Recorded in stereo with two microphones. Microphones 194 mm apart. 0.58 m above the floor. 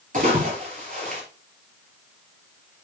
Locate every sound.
0.1 s a splash: 45° right (ahead or behind), 5 m